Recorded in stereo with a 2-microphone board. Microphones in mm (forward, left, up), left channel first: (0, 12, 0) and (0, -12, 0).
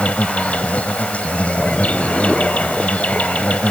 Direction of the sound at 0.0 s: 70° left (ahead or behind).